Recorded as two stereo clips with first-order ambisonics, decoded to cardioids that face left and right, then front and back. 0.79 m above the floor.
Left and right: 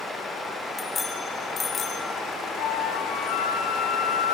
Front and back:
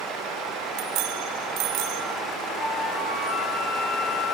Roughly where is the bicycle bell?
Behind.